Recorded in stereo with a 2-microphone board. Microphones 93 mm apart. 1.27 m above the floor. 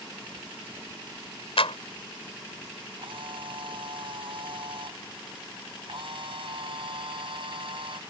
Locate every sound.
1.6 s a clap: 80° left
3.0 s a camera shutter: 65° right (ahead or behind)